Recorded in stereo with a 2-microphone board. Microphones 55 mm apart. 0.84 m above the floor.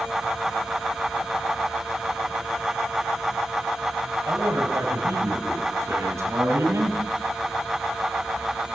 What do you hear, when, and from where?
4.3 s a man speaking: 80° right, 6 m; by 7.0 s 65° right (ahead or behind), 7 m